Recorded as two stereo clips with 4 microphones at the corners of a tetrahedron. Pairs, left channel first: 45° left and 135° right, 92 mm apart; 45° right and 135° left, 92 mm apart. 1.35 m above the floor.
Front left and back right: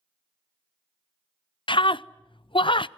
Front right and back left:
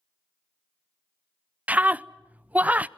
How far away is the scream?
About 0.5 m.